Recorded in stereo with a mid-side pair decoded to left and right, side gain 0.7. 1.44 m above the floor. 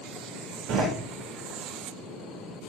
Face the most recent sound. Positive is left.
turn(degrees=-50)